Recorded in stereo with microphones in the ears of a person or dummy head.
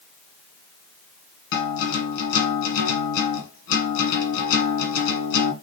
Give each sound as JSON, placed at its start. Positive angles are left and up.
{"t": 1.5, "sound": "a guitar", "side_deg": 70, "distance_m": 1.2}